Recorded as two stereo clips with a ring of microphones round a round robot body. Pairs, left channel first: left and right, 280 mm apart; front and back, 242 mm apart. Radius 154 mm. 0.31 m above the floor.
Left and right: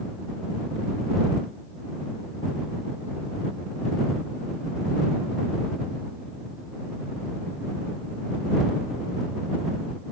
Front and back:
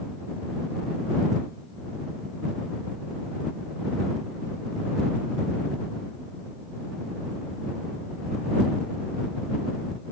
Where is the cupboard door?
No cupboard door in this recording.